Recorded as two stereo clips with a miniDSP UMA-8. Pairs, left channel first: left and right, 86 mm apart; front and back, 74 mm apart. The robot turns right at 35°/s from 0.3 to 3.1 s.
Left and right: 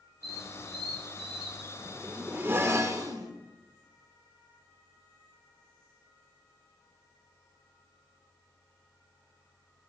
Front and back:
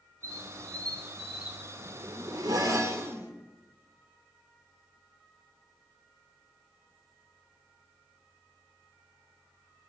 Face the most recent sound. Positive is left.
turn(degrees=-130)